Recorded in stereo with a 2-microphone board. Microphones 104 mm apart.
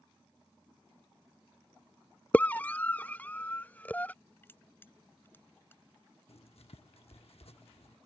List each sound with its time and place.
2.3 s a scream: 15° left (ahead or behind)
4.4 s crushing: 20° left (ahead or behind)
6.3 s writing: 75° left (ahead or behind)